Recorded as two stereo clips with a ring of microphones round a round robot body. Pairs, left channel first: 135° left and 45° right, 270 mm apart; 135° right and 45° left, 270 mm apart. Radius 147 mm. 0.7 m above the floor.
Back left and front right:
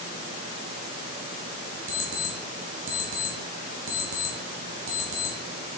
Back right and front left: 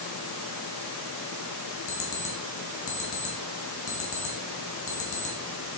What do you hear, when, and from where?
1.9 s an alarm clock: 90° right, 2.0 m